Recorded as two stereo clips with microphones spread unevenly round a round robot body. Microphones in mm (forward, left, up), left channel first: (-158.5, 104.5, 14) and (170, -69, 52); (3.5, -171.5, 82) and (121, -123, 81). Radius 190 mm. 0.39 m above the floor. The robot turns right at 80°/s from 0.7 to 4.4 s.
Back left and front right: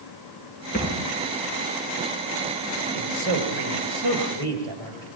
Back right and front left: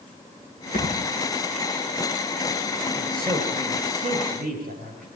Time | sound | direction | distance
0.7 | a thud | 140° right | 8.5 m
2.9 | a man speaking | 45° right | 8 m